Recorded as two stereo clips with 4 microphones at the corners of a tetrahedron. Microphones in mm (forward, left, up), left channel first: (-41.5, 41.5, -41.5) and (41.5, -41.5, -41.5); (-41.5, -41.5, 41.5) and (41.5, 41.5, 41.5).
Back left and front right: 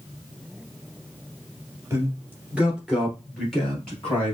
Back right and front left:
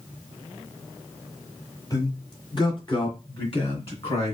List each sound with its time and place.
1.9 s a man speaking: 95° right, 1.8 m; by 4.3 s 150° right, 2.5 m